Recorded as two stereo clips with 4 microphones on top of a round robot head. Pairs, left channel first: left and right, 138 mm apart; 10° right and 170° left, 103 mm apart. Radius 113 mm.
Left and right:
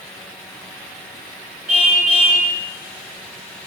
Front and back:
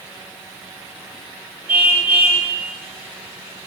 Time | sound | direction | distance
1.7 | a car horn | 115° right | 7 m